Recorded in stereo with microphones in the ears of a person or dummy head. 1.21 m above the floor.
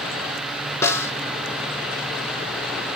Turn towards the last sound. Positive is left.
turn(degrees=15)  # may be behind; listen again after turning